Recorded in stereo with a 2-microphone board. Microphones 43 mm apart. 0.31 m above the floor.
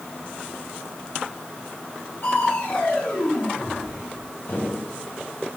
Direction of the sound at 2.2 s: 60° left (ahead or behind).